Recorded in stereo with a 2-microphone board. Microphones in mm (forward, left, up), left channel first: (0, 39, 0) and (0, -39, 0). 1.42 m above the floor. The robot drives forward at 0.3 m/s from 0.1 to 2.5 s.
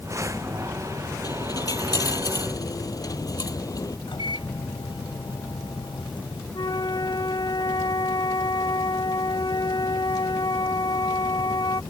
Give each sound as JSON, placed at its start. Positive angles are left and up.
{"t": 1.2, "sound": "a dropped coin", "side_deg": 50}
{"t": 4.1, "sound": "a microwave", "side_deg": 85}
{"t": 6.5, "sound": "a flute", "side_deg": 80}